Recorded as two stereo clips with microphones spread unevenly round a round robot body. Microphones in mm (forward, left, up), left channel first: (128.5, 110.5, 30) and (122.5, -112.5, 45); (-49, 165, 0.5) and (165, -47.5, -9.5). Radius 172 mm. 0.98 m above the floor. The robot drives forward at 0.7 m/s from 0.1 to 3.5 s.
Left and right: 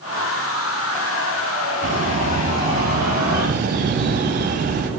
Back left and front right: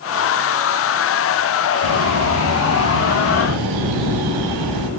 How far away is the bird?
About 5 m.